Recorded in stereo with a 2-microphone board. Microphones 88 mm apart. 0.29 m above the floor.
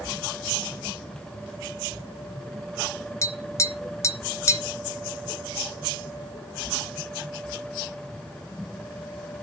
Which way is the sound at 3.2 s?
35° left (ahead or behind).